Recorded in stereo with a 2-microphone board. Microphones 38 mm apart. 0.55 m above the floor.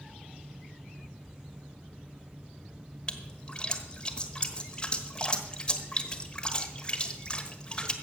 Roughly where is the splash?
Left.